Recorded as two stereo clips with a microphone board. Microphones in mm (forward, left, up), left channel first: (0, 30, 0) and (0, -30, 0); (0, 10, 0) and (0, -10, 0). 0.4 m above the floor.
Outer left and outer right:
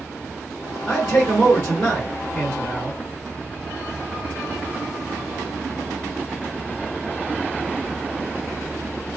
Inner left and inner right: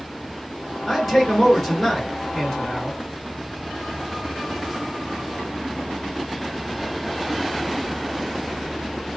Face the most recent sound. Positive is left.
turn(degrees=0)  # may be behind; listen again after turning